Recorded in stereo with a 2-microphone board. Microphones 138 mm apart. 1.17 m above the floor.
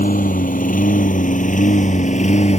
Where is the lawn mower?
80° left; by 2.6 s 55° left (ahead or behind).